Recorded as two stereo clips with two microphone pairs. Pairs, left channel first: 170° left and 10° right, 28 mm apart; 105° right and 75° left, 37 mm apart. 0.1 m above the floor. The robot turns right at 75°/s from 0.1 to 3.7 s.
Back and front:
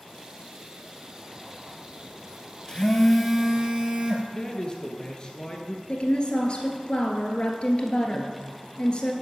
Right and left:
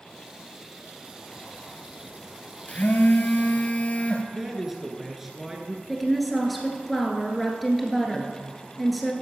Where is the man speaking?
150° left, 1.3 m.